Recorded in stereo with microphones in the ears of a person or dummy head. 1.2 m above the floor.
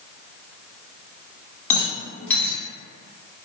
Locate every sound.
1.7 s a rattle: 10° left (ahead or behind), 0.9 m